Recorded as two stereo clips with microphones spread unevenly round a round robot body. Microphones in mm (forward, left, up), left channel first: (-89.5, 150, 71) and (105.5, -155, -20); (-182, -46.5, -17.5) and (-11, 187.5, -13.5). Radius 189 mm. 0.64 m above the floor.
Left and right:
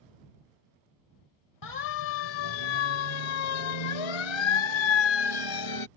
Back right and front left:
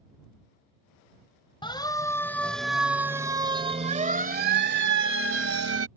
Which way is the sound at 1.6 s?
160° left.